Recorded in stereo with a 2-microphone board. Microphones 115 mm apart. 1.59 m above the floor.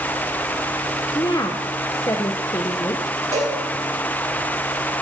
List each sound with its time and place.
1.1 s a woman speaking: 30° left (ahead or behind), 1.1 m
3.3 s a cowbell: 75° right (ahead or behind), 5 m